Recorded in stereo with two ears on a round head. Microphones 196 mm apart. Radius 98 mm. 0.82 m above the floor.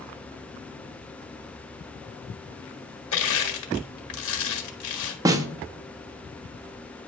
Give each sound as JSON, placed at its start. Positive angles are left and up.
{"t": 3.1, "sound": "crushing", "side_deg": 65, "distance_m": 1.5}
{"t": 5.2, "sound": "a snare drum", "side_deg": -15, "distance_m": 0.6}